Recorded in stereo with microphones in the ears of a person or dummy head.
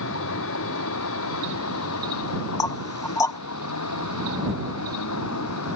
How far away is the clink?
I don't hear a clink.